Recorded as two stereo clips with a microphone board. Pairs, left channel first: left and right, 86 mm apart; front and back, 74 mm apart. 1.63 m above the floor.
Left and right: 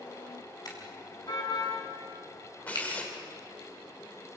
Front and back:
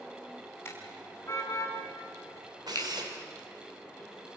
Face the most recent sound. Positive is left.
turn(degrees=165)